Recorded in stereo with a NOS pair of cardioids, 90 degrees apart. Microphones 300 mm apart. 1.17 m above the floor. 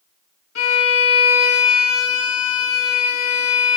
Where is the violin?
55° left, 1.7 m.